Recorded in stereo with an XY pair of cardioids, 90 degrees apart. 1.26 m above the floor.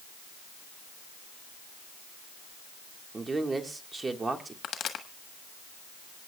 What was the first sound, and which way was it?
A man speaking, 30° right.